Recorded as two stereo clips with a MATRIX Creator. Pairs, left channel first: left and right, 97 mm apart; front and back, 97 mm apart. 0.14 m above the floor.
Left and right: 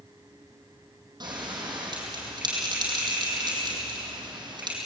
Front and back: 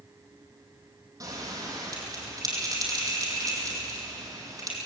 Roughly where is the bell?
Behind right.